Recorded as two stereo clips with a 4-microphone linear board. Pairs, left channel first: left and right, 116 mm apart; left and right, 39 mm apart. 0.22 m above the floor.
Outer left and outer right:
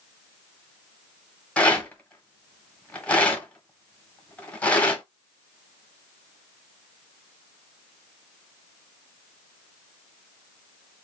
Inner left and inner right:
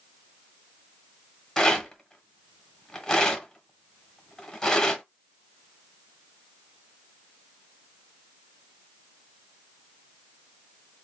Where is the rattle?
10° left (ahead or behind), 1.2 m.